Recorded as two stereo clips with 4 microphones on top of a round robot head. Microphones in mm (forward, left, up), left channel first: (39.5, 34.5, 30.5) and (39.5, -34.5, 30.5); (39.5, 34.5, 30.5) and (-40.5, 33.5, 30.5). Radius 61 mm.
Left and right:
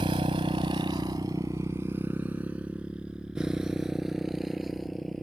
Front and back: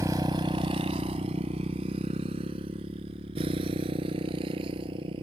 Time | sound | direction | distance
0.0 | a motorcycle | 115° right | ?